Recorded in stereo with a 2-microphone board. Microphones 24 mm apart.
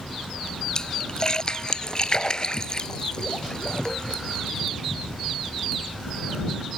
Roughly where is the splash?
Left.